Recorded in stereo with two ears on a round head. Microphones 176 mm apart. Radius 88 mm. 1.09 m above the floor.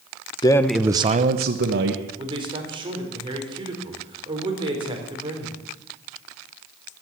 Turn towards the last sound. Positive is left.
turn(degrees=-25)  # may be behind; listen again after turning